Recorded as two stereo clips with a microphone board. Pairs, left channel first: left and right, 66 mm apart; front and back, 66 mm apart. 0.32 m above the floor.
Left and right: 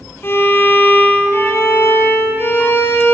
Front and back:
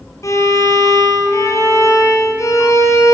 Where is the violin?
30° left, 1.3 m.